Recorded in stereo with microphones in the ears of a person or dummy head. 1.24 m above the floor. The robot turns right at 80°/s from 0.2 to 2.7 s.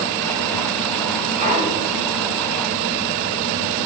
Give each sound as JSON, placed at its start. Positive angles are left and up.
{"t": 1.4, "sound": "a clunk", "azimuth_deg": -50, "distance_m": 5.5}